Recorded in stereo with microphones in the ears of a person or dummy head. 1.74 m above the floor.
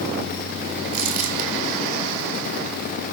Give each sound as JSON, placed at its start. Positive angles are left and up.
{"t": 0.9, "sound": "crumpling", "side_deg": -45, "distance_m": 3.0}